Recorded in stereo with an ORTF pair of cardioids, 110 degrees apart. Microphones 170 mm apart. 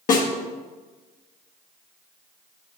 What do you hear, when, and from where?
0.1 s a snare drum: 50° left, 1.5 m